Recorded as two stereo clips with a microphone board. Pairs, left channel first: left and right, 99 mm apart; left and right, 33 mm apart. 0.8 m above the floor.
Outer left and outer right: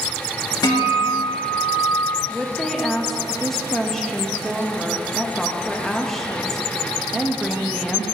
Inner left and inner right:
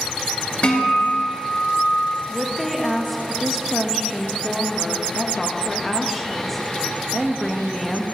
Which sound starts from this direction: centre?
A woman speaking, at 2.3 s.